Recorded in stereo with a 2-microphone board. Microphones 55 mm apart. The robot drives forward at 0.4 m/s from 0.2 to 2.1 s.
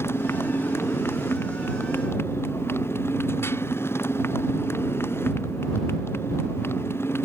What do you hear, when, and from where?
0.0 s a motorcycle: 50° left (ahead or behind); by 7.3 s 45° left (ahead or behind)